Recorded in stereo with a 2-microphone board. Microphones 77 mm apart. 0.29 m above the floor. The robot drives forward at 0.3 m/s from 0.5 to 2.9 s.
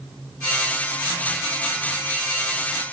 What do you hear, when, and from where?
Only background noise.